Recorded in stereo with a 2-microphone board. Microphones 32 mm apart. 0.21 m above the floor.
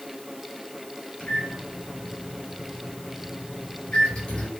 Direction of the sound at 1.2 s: 40° left (ahead or behind).